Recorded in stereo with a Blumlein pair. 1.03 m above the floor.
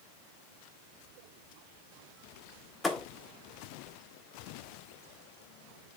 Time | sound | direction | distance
2.8 | a thud | 10° left | 1.2 m